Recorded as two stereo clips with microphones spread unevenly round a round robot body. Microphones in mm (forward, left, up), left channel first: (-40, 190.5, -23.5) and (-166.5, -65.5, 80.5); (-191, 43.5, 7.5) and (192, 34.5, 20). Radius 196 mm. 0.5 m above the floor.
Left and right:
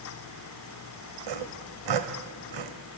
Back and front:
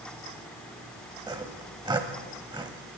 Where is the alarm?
I don't hear an alarm.